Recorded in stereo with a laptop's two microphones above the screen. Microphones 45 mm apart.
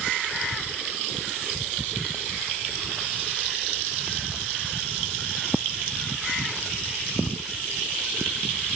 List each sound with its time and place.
Only background noise.